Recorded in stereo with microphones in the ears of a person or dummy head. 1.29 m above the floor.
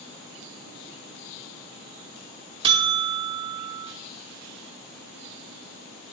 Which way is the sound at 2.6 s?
25° right (ahead or behind).